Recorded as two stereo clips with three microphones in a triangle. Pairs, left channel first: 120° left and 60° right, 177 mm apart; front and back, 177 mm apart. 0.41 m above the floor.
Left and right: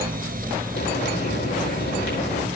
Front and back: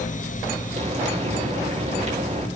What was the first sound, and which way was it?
Frying, 130° left.